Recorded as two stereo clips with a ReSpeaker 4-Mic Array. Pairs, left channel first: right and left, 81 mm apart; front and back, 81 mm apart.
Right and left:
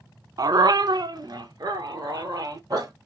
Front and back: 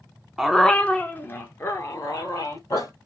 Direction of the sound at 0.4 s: 95° left.